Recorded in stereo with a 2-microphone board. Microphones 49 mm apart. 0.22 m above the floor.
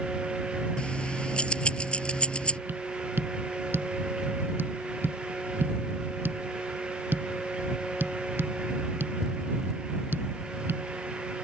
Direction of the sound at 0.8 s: 20° left (ahead or behind).